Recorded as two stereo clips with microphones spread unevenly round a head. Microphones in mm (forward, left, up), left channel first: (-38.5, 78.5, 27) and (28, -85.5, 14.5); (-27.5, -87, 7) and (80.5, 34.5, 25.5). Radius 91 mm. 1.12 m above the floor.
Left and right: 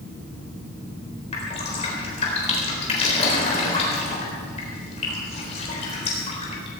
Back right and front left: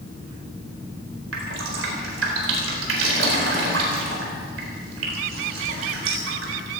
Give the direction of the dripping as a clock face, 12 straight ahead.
10 o'clock.